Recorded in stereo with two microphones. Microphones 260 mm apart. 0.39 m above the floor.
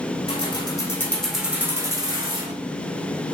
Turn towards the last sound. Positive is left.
turn(degrees=-20)  # may be behind; listen again after turning